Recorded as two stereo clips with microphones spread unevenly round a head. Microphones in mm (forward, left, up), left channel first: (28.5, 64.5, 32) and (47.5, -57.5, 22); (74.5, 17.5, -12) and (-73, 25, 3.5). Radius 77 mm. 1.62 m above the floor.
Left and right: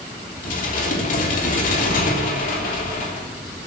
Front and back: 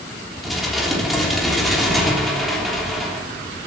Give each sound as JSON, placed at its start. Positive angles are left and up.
{"t": 0.4, "sound": "dishes clattering", "azimuth_deg": 90, "distance_m": 3.0}